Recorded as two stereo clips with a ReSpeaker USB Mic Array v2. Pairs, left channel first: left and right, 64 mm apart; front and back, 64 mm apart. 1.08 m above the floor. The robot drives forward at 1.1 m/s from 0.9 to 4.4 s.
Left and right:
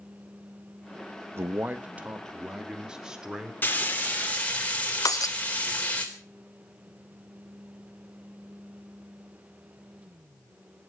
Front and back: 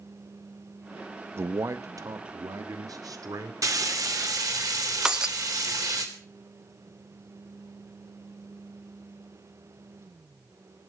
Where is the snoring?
I don't hear snoring.